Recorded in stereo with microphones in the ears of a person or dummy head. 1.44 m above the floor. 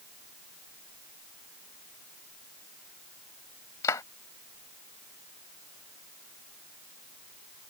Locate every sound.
3.8 s a clap: 20° left (ahead or behind)